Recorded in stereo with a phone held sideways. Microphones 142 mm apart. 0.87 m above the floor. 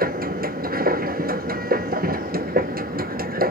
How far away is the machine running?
About 0.7 m.